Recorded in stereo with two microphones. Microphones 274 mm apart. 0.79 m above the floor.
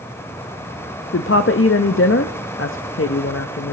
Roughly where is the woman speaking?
Left.